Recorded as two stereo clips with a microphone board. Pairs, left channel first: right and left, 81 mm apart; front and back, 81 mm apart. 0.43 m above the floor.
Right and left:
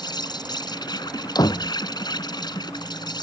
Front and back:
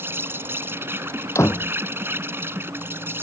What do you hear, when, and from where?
0.0 s an insect: 120° right
1.4 s a door slam: 55° right